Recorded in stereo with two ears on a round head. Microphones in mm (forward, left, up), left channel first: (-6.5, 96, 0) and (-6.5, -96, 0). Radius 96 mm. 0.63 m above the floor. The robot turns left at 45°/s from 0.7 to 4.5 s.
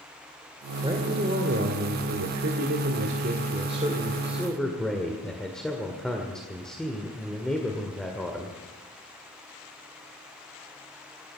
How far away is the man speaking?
About 1.8 m.